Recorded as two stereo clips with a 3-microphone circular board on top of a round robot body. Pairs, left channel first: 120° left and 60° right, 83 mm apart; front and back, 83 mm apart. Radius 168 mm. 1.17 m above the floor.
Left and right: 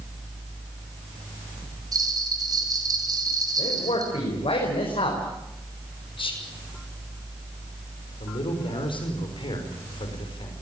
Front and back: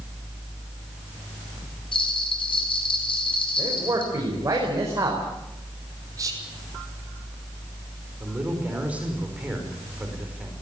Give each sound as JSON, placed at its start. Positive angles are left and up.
{"t": 1.9, "sound": "a bell", "azimuth_deg": -15, "distance_m": 5.0}
{"t": 3.6, "sound": "a man speaking", "azimuth_deg": 125, "distance_m": 5.5}
{"t": 6.2, "sound": "whispering", "azimuth_deg": 130, "distance_m": 5.5}
{"t": 8.2, "sound": "a man speaking", "azimuth_deg": 105, "distance_m": 5.5}